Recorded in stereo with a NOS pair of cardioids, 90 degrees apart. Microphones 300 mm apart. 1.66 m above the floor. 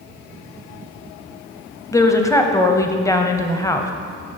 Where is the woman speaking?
10° left, 0.7 m.